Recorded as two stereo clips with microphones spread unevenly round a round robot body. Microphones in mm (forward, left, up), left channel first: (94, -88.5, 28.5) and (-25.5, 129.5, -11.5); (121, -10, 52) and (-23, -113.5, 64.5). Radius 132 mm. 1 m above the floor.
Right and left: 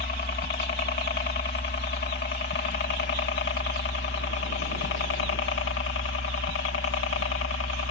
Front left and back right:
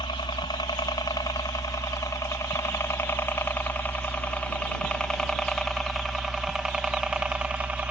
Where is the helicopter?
15° right; by 7.9 s 65° right.